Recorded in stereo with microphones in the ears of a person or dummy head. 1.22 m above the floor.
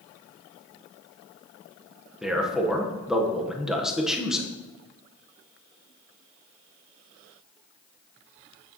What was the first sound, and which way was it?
A man speaking, centre (ahead or behind).